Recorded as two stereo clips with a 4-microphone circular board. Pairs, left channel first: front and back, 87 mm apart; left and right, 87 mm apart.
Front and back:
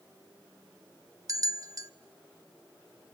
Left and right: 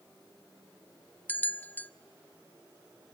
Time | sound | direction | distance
1.3 | a bell | 150° left | 0.8 m